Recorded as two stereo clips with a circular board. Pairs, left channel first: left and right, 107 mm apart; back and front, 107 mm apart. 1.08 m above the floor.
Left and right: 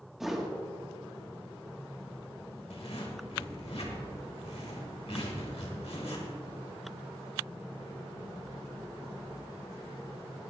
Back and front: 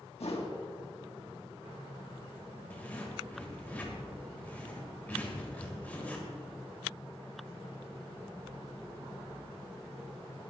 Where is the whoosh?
175° right, 1.6 m.